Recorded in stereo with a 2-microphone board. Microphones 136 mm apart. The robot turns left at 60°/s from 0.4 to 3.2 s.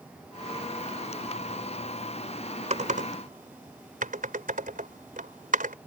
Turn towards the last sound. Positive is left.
turn(degrees=-80)